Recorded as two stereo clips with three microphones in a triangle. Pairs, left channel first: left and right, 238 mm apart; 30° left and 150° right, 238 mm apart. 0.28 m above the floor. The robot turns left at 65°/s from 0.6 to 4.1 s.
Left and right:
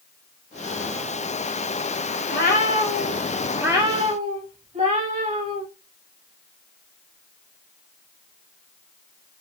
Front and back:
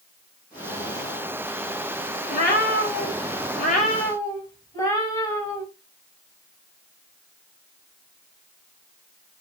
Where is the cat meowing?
75° left, 0.8 m; by 5.6 s 45° right, 0.8 m.